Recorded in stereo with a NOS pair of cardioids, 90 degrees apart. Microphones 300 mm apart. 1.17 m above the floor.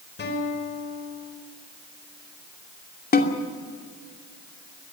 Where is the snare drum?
30° left, 2.5 m.